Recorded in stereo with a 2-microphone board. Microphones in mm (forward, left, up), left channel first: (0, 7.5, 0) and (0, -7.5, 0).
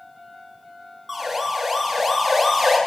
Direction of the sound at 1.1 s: 5° right (ahead or behind).